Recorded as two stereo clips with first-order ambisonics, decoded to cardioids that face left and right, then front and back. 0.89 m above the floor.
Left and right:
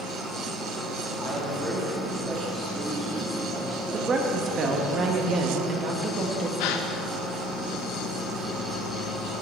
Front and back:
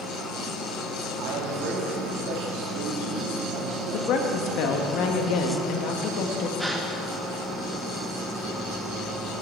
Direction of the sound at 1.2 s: 170° right.